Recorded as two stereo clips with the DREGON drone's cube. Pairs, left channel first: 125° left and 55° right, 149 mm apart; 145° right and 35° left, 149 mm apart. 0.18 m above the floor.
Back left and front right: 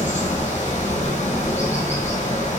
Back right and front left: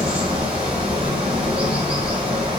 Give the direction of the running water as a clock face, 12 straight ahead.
9 o'clock.